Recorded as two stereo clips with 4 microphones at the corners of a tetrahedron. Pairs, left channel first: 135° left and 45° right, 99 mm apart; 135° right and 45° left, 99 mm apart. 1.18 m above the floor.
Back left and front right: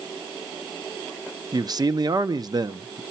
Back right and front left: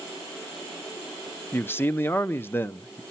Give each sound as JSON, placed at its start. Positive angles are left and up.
{"t": 1.5, "sound": "a man speaking", "azimuth_deg": -75, "distance_m": 0.6}